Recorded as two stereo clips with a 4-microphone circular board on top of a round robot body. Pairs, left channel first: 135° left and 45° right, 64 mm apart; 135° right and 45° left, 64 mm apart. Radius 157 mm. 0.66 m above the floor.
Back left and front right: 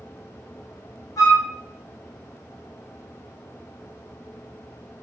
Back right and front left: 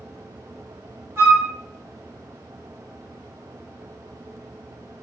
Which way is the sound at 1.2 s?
100° left.